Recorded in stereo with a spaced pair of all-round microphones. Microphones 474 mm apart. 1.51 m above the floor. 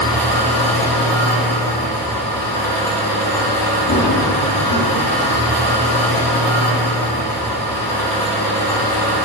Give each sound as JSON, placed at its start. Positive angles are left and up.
{"t": 0.0, "sound": "an engine running", "side_deg": 5, "distance_m": 1.1}
{"t": 3.9, "sound": "running footsteps", "side_deg": 40, "distance_m": 1.9}